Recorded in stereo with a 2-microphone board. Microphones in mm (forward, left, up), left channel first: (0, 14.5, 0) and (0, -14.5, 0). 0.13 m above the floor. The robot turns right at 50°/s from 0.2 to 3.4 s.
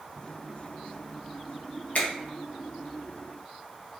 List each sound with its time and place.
1.9 s a finger snap: 55° left (ahead or behind), 1.4 m